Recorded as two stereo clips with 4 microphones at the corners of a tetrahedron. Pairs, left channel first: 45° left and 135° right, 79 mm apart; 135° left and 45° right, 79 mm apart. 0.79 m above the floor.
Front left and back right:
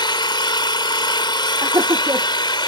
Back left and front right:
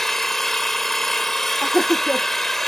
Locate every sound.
0.0 s an engine running: 50° left
1.6 s laughter: 120° right